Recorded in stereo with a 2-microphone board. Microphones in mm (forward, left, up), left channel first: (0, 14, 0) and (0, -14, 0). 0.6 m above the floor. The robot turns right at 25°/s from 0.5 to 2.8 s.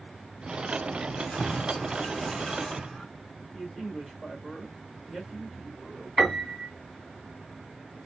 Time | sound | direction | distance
1.1 | keys jangling | 120° left | 3 m
3.5 | a man speaking | 10° left (ahead or behind) | 2 m
6.2 | a piano | centre (ahead or behind) | 1.8 m